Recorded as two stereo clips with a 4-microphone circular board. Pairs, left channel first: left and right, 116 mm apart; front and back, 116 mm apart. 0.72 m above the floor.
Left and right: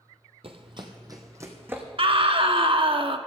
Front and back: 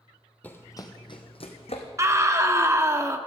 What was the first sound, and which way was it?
Running footsteps, 75° right.